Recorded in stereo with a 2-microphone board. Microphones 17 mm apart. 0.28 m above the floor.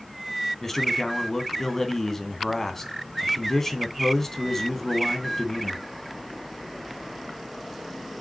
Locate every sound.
0.6 s a man speaking: 25° left (ahead or behind), 2.5 m